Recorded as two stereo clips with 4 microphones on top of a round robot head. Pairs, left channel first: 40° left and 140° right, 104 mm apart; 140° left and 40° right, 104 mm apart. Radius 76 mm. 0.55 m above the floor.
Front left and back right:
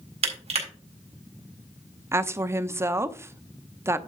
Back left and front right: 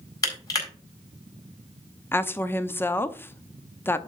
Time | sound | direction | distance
0.2 | crushing | 160° right | 4 m
2.1 | a woman speaking | 175° right | 0.7 m